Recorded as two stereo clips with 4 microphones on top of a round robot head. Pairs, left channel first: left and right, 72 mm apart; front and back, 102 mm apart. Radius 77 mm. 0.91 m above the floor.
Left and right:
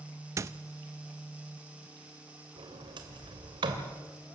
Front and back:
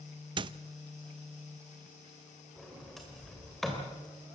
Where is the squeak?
140° right, 0.5 m.